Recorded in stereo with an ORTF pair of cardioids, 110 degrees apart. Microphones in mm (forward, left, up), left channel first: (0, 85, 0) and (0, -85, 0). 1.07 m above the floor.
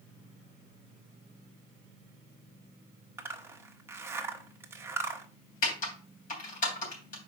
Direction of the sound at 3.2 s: 15° right.